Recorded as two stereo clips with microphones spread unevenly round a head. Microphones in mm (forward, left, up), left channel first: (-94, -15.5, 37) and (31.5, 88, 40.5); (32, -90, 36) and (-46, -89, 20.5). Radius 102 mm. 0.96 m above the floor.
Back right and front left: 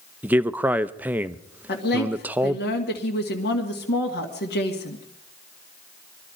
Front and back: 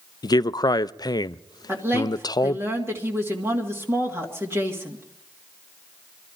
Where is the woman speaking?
130° right, 2 m.